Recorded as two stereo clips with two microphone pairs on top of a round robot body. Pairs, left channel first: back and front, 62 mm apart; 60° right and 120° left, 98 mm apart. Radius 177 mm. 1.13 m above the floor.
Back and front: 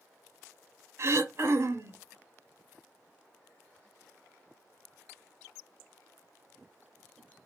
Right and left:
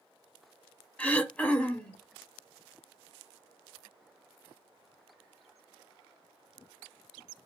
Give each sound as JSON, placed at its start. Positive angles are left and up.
{"t": 1.0, "sound": "throat clearing", "azimuth_deg": 10, "distance_m": 0.9}